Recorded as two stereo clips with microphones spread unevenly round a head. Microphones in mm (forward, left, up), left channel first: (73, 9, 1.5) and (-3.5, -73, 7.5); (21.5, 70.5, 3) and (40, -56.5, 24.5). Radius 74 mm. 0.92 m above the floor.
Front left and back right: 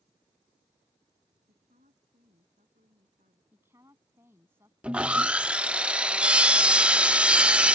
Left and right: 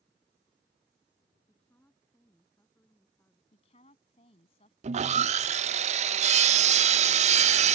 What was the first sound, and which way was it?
A woman speaking, straight behind.